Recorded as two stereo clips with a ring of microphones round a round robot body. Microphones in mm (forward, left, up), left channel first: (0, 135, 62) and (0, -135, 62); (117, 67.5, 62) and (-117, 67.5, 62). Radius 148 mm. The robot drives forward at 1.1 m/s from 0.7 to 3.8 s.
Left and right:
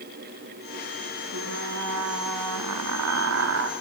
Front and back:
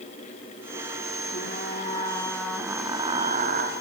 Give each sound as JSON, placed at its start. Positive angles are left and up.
{"t": 1.3, "sound": "frying", "azimuth_deg": -50, "distance_m": 2.0}